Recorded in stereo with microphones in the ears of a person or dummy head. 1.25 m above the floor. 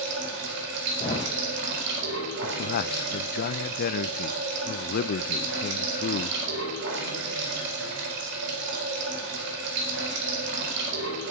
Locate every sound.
0.0 s running water: 65° right (ahead or behind), 4.5 m
1.0 s a thud: 25° left (ahead or behind), 2.5 m
2.4 s a man speaking: 55° left (ahead or behind), 0.6 m